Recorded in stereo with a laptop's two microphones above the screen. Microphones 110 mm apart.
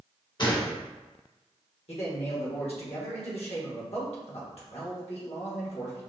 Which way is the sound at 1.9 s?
60° left (ahead or behind).